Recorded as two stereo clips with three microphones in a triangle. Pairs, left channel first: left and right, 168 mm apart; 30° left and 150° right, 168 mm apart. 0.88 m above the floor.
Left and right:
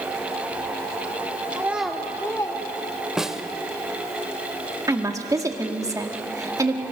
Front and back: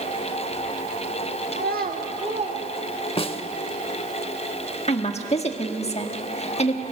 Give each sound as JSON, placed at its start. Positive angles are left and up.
{"t": 1.5, "sound": "a child speaking", "azimuth_deg": -160, "distance_m": 1.1}
{"t": 3.2, "sound": "a snare drum", "azimuth_deg": -5, "distance_m": 0.7}
{"t": 4.9, "sound": "a woman speaking", "azimuth_deg": -20, "distance_m": 1.4}